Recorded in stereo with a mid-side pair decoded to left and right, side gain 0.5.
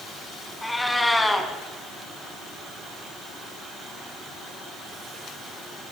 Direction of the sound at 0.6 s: 10° left.